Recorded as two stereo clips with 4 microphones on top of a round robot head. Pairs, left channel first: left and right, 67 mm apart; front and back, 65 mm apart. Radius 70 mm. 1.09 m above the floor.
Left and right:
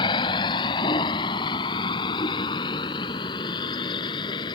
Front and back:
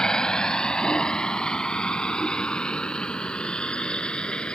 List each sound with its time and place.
0.0 s a vehicle: 75° left; by 4.5 s 70° left